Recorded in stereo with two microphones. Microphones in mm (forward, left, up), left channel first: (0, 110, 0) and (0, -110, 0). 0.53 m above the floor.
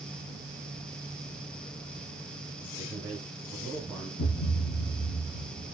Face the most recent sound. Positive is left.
turn(degrees=60)  # may be behind; listen again after turning